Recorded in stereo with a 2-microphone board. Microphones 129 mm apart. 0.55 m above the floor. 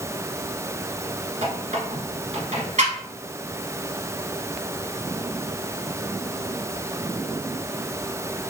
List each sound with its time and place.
1.4 s a squeak: 70° right (ahead or behind), 1.3 m